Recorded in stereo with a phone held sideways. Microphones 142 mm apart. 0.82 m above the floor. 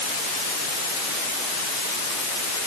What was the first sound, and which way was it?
Only background noise.